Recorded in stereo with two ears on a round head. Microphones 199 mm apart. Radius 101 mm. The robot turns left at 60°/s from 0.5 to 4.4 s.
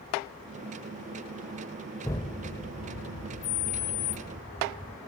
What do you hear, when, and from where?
2.0 s an explosion: 165° left; by 5.0 s 25° left